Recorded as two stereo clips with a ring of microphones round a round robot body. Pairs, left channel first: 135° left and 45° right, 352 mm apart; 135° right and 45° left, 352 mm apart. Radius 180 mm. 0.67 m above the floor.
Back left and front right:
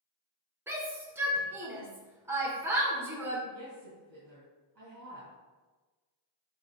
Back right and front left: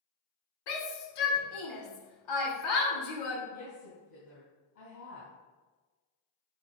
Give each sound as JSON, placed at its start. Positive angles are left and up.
{"t": 0.7, "sound": "a shout", "azimuth_deg": -130, "distance_m": 2.0}
{"t": 3.5, "sound": "a woman speaking", "azimuth_deg": -95, "distance_m": 3.5}